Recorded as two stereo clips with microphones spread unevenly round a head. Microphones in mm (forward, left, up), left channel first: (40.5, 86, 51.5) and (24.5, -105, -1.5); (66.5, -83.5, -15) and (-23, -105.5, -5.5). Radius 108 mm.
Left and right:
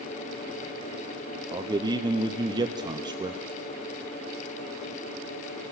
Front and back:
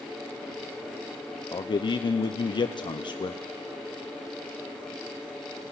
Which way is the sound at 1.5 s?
25° right.